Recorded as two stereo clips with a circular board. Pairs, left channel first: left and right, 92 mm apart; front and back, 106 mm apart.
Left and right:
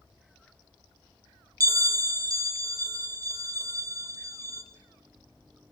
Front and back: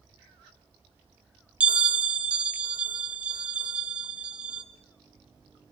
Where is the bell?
105° right, 0.8 m.